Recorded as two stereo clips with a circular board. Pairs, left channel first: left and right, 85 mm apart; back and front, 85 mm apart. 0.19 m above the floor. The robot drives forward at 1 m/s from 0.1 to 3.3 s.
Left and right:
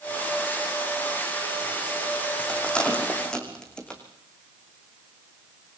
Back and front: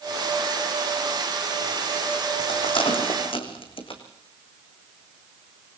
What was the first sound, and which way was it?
A rattle, 170° left.